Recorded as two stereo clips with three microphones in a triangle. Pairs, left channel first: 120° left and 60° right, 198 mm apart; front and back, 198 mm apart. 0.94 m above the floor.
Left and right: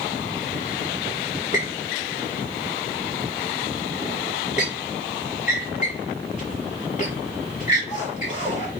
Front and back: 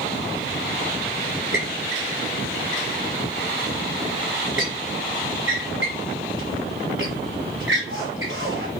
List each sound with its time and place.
1.5 s a squeak: 175° left, 5.5 m